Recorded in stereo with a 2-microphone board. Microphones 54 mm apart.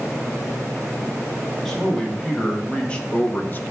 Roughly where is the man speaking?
Centre.